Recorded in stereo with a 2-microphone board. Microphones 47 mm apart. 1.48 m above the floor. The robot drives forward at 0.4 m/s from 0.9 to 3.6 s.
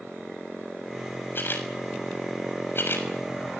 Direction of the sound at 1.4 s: 50° left (ahead or behind).